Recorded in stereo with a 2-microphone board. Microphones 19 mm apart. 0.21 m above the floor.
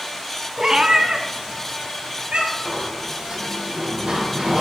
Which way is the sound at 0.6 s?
30° right (ahead or behind).